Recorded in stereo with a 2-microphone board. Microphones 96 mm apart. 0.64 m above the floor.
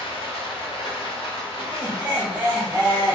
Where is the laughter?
20° right (ahead or behind), 1.2 m.